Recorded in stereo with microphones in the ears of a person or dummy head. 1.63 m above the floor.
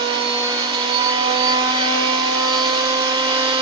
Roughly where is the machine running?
Right.